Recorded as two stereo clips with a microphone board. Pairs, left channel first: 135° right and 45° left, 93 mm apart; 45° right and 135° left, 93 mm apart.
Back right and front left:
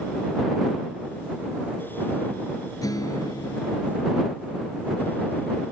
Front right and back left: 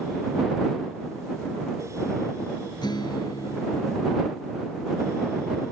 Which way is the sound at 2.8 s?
85° right.